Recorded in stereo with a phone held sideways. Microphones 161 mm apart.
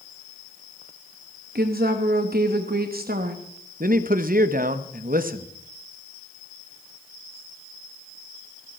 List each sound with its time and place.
1.6 s a woman speaking: 70° right (ahead or behind), 1.1 m
3.8 s a man speaking: 60° right (ahead or behind), 0.9 m